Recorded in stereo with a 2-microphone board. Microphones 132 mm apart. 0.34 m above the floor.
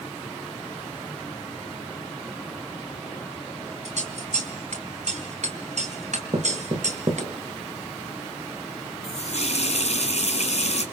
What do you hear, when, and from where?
3.9 s scissors: 70° right (ahead or behind), 3 m
6.3 s knocking: 50° right (ahead or behind), 3 m
9.0 s a running tap: 60° left (ahead or behind), 2.5 m